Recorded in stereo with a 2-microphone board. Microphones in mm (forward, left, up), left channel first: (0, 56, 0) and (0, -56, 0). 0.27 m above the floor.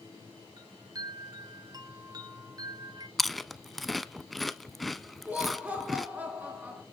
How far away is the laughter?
About 4 m.